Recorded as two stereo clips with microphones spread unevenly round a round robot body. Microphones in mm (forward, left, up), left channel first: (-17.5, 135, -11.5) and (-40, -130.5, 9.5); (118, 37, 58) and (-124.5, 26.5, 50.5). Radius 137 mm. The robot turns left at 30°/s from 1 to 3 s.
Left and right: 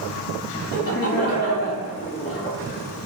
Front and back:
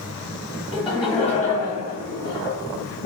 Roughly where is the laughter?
Ahead left.